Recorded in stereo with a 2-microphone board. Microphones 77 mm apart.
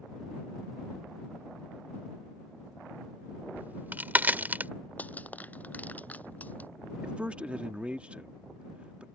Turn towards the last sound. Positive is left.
turn(degrees=-15)  # may be behind; listen again after turning